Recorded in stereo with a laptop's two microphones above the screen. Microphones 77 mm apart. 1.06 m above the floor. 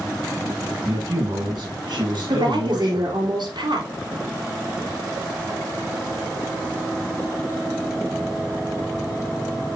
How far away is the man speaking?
About 6.5 m.